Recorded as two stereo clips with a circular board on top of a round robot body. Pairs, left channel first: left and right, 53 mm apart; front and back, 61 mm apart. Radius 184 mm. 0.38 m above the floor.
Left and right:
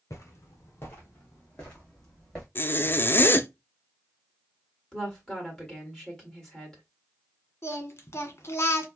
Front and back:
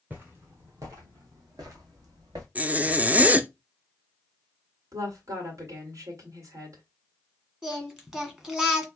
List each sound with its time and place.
0.1 s footsteps: 115° left, 0.8 m; by 2.5 s 165° left, 1.9 m
2.5 s a zipper: 120° left, 0.6 m
4.9 s a woman speaking: 160° left, 2.0 m
7.6 s singing: 105° left, 1.5 m